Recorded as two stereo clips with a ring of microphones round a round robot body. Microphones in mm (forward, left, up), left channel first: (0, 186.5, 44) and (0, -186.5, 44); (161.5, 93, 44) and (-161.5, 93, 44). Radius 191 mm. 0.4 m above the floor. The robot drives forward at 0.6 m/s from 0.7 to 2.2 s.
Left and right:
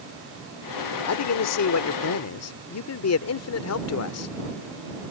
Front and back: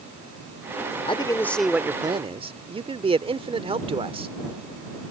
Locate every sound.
1.1 s a man speaking: 65° left; by 4.3 s 115° left